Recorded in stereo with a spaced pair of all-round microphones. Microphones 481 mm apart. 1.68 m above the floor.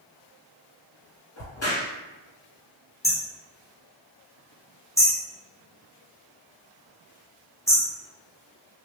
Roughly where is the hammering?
Centre.